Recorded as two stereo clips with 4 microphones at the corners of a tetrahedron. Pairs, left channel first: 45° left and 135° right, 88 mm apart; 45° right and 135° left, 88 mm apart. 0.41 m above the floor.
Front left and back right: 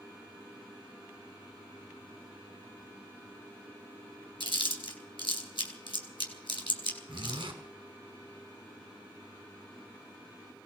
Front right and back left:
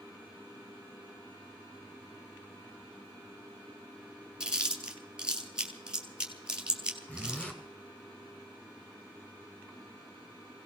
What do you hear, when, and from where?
4.4 s chewing: 55° left, 2 m
7.1 s a zipper: 120° right, 2.5 m